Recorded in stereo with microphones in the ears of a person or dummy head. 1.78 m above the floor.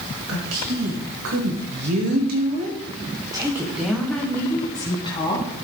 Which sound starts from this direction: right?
A woman speaking, at 0.3 s.